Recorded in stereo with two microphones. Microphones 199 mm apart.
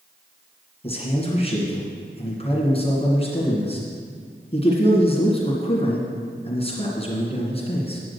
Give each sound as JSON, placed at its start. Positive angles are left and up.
{"t": 0.8, "sound": "a man speaking", "side_deg": 30, "distance_m": 2.5}